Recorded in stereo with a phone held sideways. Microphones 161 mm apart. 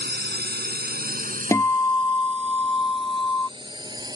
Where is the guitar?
15° left (ahead or behind).